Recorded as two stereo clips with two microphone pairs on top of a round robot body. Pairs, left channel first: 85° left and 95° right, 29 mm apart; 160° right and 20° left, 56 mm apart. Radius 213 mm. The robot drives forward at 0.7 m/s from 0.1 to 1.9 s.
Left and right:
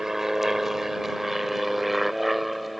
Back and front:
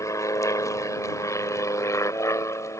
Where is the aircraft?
170° right; by 2.8 s 175° left.